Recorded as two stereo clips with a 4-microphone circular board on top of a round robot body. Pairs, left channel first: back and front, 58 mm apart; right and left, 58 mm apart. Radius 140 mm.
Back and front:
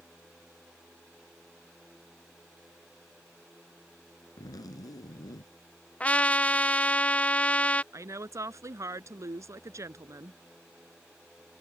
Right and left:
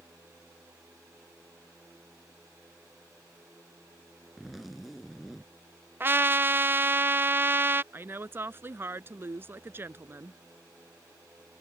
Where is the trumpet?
125° left.